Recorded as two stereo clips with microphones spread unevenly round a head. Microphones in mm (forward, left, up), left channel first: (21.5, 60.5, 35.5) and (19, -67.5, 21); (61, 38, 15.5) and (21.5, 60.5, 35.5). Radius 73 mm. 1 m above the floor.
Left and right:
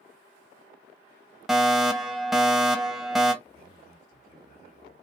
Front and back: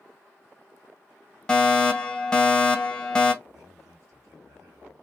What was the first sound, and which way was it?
A fire alarm, 10° right.